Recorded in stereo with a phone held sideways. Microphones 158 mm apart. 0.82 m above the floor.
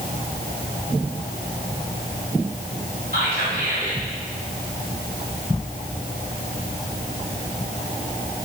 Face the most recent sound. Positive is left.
turn(degrees=-75)  # may be behind; listen again after turning